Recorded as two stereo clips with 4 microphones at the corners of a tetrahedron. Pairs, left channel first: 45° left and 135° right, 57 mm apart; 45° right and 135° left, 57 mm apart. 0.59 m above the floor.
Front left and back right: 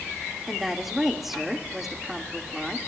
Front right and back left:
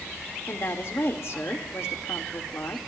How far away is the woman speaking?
About 1.5 m.